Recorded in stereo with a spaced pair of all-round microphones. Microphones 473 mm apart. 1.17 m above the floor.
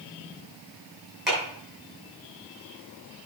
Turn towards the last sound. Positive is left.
turn(degrees=0)  # may be behind; listen again after turning